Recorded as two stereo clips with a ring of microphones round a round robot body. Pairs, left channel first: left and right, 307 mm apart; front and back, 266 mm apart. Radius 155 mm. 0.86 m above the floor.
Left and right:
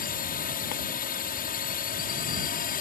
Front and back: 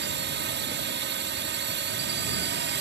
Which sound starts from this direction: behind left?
A drone, at 0.0 s.